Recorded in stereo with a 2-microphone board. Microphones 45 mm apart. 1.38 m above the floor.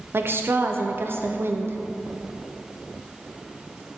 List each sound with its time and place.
0.1 s a woman speaking: 55° right (ahead or behind), 0.5 m